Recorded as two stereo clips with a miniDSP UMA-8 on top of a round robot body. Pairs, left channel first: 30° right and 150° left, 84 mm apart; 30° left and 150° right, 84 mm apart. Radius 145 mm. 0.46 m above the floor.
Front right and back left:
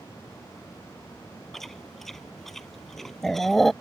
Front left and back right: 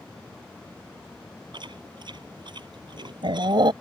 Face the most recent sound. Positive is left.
turn(degrees=-115)